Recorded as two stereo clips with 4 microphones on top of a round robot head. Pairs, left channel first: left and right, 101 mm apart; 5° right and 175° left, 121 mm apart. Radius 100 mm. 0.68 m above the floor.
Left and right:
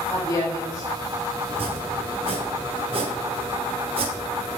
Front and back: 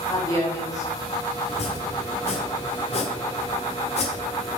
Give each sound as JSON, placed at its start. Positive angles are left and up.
{"t": 0.1, "sound": "a woman speaking", "azimuth_deg": 50, "distance_m": 1.7}
{"t": 1.5, "sound": "chopping", "azimuth_deg": -50, "distance_m": 0.8}